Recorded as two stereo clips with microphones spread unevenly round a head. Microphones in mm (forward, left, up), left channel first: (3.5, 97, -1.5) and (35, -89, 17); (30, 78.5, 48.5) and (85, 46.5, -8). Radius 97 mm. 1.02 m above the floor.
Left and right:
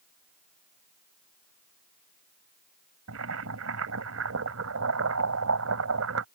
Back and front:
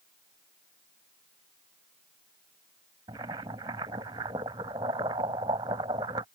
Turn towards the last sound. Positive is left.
turn(degrees=-75)